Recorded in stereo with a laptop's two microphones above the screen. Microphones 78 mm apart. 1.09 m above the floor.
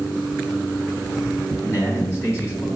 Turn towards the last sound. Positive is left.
turn(degrees=30)  # may be behind; listen again after turning